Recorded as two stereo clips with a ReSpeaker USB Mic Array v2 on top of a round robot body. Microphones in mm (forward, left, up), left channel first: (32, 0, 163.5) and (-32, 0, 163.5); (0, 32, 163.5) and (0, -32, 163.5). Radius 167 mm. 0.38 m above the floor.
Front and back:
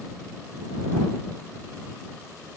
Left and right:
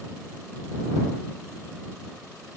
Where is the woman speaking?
No woman speaking in this recording.